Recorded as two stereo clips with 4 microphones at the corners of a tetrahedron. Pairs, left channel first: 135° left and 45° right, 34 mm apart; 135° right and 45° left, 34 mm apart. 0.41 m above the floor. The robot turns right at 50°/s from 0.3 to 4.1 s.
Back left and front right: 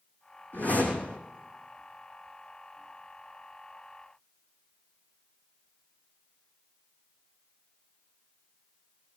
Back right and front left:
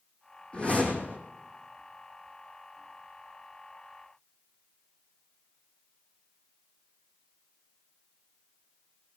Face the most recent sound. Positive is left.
turn(degrees=-15)